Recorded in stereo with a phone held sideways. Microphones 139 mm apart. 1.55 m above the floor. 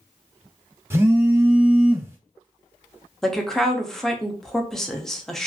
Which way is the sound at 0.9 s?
15° right (ahead or behind).